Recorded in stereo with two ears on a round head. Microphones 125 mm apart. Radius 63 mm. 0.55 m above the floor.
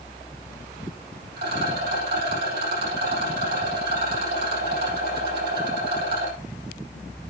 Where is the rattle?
85° right, 5.5 m.